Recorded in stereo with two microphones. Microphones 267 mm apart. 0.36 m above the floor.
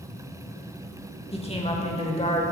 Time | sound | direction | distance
1.3 | a woman speaking | 20° left (ahead or behind) | 1.0 m